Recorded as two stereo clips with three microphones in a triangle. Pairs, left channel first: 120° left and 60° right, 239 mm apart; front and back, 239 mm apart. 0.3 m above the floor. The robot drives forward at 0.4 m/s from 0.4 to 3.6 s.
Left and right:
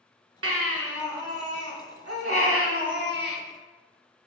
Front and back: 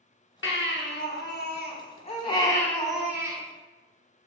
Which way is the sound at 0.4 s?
35° right.